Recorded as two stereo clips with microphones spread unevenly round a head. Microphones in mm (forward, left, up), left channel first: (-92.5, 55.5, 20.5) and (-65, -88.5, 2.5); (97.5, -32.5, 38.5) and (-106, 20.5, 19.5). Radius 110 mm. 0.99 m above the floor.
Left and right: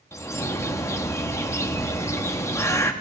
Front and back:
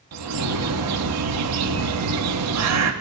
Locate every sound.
0.1 s a bird: 175° left, 1.2 m